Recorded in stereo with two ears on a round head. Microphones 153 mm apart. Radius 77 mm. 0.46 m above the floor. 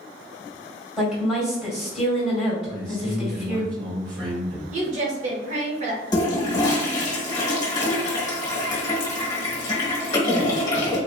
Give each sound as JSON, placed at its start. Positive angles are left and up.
{"t": 1.0, "sound": "a woman speaking", "side_deg": -5, "distance_m": 2.0}
{"t": 2.7, "sound": "a man speaking", "side_deg": -55, "distance_m": 2.0}
{"t": 4.7, "sound": "a woman speaking", "side_deg": -40, "distance_m": 1.1}
{"t": 6.1, "sound": "a toilet flushing", "side_deg": 25, "distance_m": 1.4}